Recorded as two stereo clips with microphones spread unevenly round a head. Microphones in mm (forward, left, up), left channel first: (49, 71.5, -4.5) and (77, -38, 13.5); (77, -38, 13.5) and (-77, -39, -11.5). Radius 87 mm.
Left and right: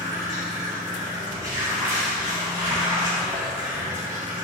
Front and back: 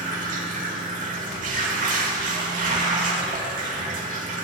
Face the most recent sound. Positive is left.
turn(degrees=-145)